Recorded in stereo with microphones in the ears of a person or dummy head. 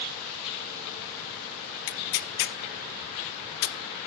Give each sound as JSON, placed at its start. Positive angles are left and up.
{"t": 1.9, "sound": "tearing paper", "side_deg": 55, "distance_m": 0.5}